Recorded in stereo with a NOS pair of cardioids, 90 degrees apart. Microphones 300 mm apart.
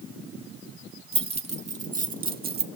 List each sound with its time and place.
1.1 s keys jangling: 20° right, 2.5 m; by 2.6 s 35° right, 1.8 m